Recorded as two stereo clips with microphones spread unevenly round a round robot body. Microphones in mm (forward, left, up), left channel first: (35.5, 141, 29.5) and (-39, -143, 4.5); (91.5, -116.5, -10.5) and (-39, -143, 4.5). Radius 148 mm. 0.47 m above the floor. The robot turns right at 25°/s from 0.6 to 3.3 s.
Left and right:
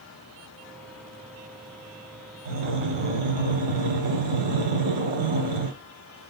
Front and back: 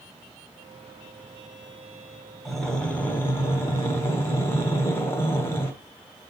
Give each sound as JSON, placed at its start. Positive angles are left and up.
{"t": 2.5, "sound": "breathing", "azimuth_deg": -75, "distance_m": 0.9}